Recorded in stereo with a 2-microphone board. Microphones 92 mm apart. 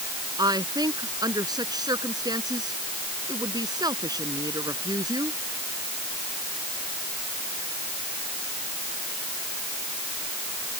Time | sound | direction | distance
0.4 | a woman speaking | 50° right (ahead or behind) | ?